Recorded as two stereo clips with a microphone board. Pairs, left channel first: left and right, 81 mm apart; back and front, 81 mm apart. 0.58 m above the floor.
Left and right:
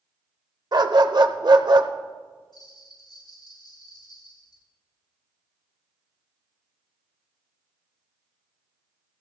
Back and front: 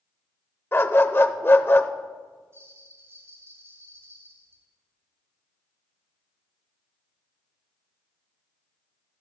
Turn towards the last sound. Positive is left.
turn(degrees=60)